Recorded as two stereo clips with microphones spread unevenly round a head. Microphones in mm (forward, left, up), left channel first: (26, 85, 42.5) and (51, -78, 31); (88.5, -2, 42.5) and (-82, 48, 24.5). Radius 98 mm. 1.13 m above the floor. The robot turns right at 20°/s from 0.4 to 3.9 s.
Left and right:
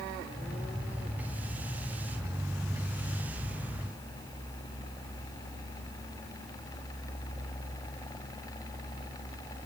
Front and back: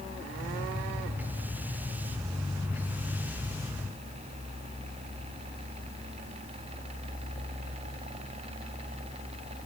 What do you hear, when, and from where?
Only background noise.